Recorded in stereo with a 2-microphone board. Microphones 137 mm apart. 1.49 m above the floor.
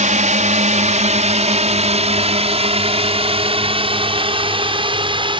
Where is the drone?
65° right (ahead or behind); by 5.4 s 40° right (ahead or behind).